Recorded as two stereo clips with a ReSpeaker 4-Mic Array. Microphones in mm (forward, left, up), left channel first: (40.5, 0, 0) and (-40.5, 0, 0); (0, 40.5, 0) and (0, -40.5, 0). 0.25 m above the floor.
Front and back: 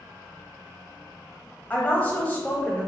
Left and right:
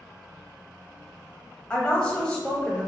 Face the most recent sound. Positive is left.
turn(degrees=35)